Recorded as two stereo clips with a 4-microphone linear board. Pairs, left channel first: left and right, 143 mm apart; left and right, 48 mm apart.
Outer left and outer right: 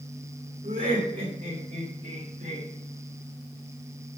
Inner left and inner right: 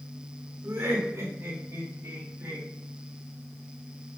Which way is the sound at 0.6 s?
75° right (ahead or behind).